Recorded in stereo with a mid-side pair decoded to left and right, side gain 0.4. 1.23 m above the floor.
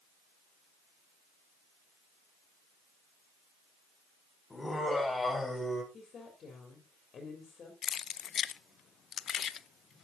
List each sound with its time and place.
4.5 s laughter: 20° left, 7 m; by 5.8 s 25° left, 6.5 m
5.9 s a woman speaking: 55° left, 4 m
7.8 s keys jangling: 60° left, 0.5 m